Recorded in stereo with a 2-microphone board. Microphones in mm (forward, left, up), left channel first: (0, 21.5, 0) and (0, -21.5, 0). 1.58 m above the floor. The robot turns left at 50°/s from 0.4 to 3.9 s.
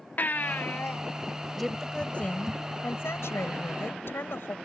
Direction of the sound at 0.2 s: 40° left (ahead or behind).